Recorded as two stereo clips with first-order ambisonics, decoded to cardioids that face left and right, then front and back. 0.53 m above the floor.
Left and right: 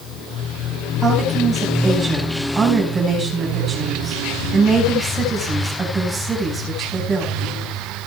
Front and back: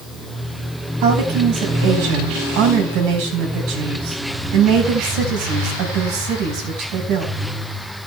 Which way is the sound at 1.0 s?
170° right.